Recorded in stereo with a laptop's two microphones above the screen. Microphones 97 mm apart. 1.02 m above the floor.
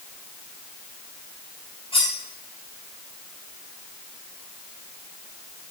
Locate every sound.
1.9 s cutlery clinking: 75° left (ahead or behind), 3 m